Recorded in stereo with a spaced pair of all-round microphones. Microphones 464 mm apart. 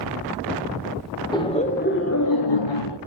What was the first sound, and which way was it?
Laughter, 10° left (ahead or behind).